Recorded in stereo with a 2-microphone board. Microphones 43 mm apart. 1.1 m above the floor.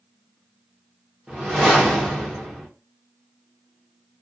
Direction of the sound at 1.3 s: 10° right (ahead or behind).